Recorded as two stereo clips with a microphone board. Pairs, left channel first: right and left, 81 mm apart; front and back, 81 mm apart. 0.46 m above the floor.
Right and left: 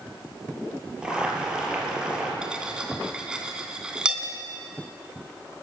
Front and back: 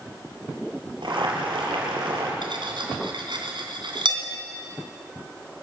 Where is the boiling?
170° left, 5 m.